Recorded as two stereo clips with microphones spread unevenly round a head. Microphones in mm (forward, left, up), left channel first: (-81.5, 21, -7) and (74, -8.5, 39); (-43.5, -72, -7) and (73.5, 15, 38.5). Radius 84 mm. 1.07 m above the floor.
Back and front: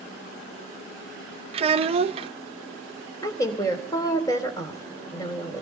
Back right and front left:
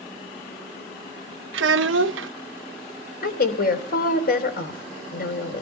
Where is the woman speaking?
120° right, 3.5 m.